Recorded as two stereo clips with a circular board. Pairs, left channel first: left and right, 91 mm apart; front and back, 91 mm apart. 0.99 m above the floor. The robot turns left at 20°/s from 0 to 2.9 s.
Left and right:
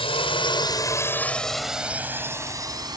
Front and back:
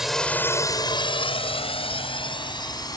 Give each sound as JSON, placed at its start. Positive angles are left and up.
{"t": 0.0, "sound": "a drone", "azimuth_deg": 95}